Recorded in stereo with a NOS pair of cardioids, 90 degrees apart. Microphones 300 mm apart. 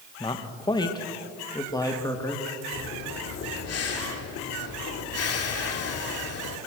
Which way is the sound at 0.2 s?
15° left.